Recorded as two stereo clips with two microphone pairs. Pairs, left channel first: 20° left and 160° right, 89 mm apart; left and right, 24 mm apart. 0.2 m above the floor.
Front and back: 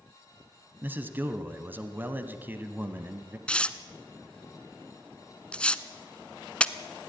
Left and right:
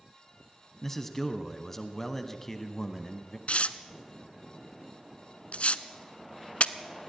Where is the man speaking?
155° left, 1.1 m.